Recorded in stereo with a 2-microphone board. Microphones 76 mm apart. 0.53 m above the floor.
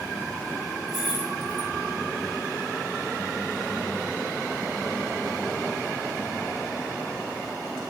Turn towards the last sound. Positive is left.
turn(degrees=-5)  # may be behind; listen again after turning